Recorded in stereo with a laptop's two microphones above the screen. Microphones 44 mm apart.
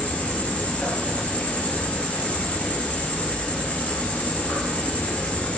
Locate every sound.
0.0 s an insect: 35° left (ahead or behind), 0.8 m